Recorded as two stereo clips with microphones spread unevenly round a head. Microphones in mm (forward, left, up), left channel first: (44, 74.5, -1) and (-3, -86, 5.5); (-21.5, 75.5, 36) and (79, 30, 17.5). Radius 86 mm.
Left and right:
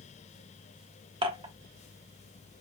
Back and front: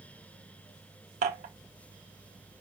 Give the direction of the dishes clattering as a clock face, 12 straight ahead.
2 o'clock.